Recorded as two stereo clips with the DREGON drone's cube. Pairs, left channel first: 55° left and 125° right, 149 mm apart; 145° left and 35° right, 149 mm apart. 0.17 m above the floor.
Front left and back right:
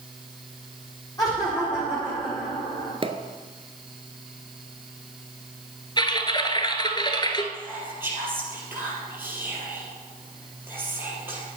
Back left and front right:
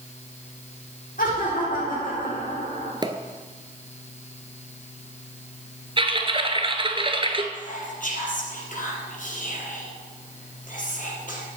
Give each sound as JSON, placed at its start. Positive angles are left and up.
{"t": 1.2, "sound": "laughter", "azimuth_deg": 125, "distance_m": 5.5}
{"t": 3.0, "sound": "a pop", "azimuth_deg": -85, "distance_m": 0.9}
{"t": 6.0, "sound": "typing on a keyboard", "azimuth_deg": 5, "distance_m": 1.0}
{"t": 7.5, "sound": "whispering", "azimuth_deg": 160, "distance_m": 4.0}